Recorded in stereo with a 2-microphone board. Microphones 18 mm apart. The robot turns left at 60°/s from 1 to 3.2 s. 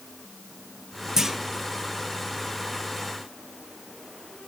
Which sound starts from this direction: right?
A clunk, at 1.2 s.